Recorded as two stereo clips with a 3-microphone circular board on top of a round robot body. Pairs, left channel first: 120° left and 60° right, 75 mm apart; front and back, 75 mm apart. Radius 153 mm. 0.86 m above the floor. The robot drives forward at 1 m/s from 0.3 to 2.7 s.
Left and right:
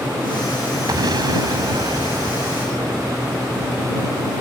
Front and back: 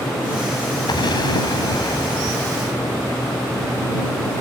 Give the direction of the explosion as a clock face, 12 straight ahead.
1 o'clock.